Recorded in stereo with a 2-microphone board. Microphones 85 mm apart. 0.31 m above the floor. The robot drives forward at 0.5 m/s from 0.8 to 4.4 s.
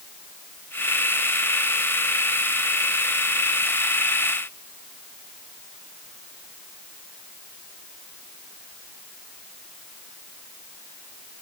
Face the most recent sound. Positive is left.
No sound to turn to.